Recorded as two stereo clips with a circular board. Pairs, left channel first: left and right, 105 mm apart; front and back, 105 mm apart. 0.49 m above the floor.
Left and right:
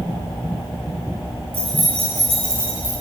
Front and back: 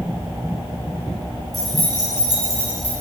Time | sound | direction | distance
1.5 | keys jangling | 90° right | 4 m